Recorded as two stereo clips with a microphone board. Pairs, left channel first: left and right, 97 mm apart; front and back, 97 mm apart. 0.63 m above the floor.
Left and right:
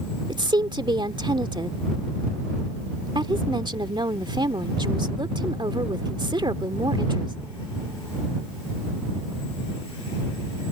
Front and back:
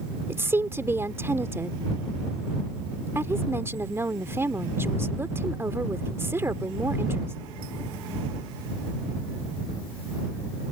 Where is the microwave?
No microwave in this recording.